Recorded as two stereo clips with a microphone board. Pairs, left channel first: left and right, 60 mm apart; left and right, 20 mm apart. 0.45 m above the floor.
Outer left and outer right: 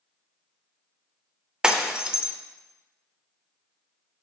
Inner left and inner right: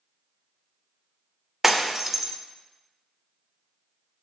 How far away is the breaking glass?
About 0.6 m.